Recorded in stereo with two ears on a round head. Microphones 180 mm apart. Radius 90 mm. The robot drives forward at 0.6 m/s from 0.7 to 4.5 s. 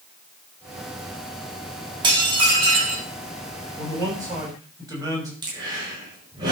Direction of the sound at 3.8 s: 15° right (ahead or behind).